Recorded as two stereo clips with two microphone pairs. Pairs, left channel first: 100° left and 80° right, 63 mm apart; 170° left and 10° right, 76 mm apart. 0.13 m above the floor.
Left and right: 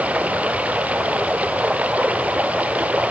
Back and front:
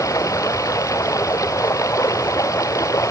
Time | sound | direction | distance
0.0 | running water | 145° right | ?